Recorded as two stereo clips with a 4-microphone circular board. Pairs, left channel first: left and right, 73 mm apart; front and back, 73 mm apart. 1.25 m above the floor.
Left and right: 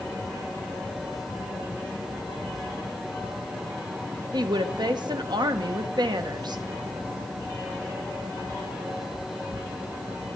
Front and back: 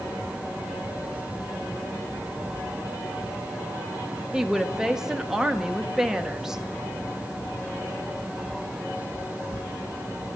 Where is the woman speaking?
95° right, 1.0 m.